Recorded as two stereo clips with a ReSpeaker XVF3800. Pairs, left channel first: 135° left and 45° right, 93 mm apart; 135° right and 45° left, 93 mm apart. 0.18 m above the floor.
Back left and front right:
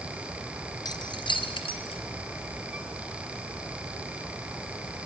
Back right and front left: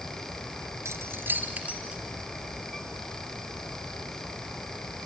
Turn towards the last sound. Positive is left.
turn(degrees=125)